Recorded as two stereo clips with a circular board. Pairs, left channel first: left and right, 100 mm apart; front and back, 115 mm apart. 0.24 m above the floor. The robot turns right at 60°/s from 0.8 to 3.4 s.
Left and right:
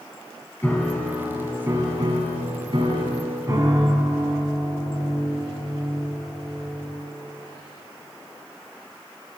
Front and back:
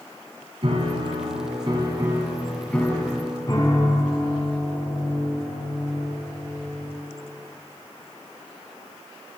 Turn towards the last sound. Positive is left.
turn(degrees=-45)